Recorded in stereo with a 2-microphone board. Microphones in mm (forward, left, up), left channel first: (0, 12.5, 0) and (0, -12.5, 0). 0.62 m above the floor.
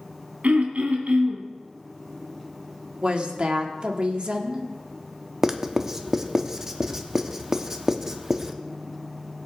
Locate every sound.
0.4 s throat clearing: 85° right, 2 m
3.0 s a woman speaking: 45° right (ahead or behind), 1.6 m
5.4 s writing: 20° right (ahead or behind), 0.8 m